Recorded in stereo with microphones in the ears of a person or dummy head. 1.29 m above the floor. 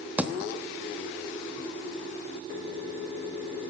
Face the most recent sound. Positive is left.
turn(degrees=-10)  # may be behind; listen again after turning